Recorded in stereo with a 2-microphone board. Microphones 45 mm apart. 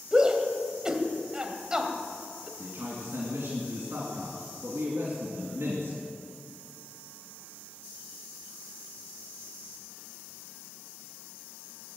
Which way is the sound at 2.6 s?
55° right (ahead or behind).